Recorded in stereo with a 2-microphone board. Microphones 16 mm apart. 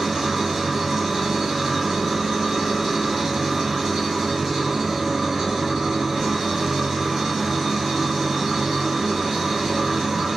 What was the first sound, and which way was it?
An engine running, 10° right (ahead or behind).